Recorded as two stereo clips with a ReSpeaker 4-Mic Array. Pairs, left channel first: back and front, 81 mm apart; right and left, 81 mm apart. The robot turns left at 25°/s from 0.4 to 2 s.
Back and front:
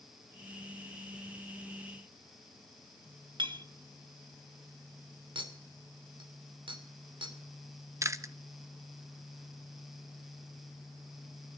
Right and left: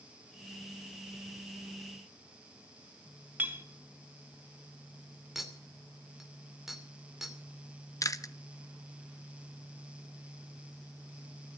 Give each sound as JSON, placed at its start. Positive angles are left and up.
{"t": 3.4, "sound": "a clink", "azimuth_deg": 25, "distance_m": 1.3}
{"t": 5.3, "sound": "a clink", "azimuth_deg": 5, "distance_m": 2.5}
{"t": 8.0, "sound": "chewing", "azimuth_deg": -45, "distance_m": 0.8}